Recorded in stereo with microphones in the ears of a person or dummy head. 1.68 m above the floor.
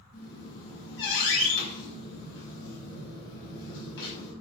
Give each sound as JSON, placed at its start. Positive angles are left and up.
{"t": 0.1, "sound": "a squeak", "side_deg": 75, "distance_m": 4.5}